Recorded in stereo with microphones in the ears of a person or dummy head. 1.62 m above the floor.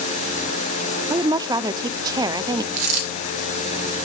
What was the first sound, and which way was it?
A woman speaking, 20° right (ahead or behind).